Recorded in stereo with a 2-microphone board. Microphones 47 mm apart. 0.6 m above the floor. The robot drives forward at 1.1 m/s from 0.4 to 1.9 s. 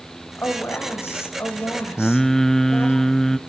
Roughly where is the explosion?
No explosion in this recording.